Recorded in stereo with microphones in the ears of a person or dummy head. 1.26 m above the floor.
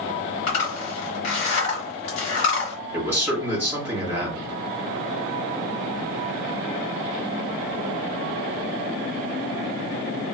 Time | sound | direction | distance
0.5 | a zipper | 40° left (ahead or behind) | 1.6 m
2.9 | a man speaking | 15° right (ahead or behind) | 1.5 m